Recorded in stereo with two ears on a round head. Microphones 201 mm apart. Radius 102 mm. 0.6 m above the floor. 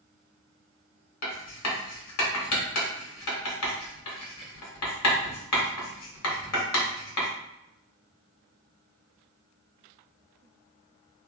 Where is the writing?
75° left (ahead or behind), 1.4 m.